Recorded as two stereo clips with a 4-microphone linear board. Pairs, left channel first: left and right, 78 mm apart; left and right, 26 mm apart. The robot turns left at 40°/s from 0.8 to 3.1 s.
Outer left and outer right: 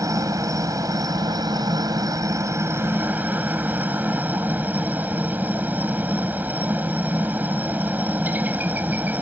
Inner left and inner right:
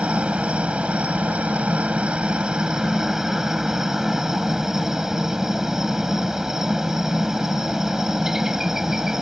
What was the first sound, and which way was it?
A helicopter, 60° right.